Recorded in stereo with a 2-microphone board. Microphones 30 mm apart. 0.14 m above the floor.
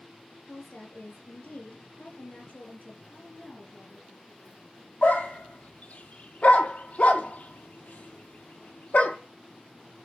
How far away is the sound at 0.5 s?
About 3.5 m.